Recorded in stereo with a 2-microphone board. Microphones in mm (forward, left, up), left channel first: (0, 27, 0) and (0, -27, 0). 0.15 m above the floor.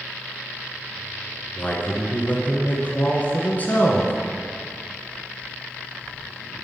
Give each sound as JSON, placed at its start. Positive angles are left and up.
{"t": 1.6, "sound": "a man speaking", "side_deg": 35, "distance_m": 1.4}